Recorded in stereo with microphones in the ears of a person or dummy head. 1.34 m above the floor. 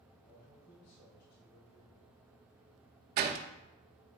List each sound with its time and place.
0.2 s a man speaking: 55° left (ahead or behind), 4 m
3.2 s a door slam: 50° right (ahead or behind), 0.7 m